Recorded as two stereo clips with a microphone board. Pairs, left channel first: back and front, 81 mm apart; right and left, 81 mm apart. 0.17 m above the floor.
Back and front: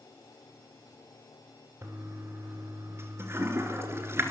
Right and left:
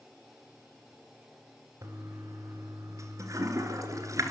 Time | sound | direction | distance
1.8 | a toilet flushing | 50° left | 2.5 m